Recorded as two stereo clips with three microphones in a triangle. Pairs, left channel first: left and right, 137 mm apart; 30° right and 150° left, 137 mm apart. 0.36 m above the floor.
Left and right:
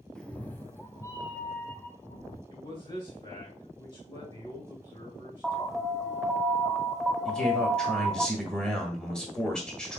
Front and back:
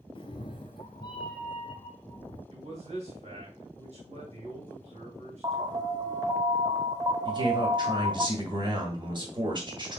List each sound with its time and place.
0.1 s a cat meowing: 5° left, 0.5 m; by 2.4 s 25° left, 1.9 m
2.5 s a man speaking: 135° left, 2.5 m
5.4 s an alarm: straight behind, 0.7 m
7.2 s a man speaking: 170° left, 1.5 m